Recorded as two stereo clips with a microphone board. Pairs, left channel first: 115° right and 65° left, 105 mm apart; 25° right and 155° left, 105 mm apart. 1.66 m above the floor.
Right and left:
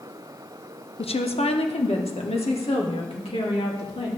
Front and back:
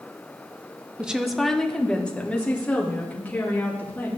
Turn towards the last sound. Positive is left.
turn(degrees=-95)